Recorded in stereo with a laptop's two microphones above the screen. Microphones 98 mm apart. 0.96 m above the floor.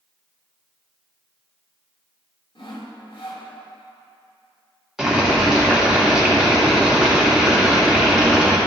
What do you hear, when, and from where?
2.5 s sawing: 60° left (ahead or behind), 1.6 m
5.0 s boiling: 5° right (ahead or behind), 1.8 m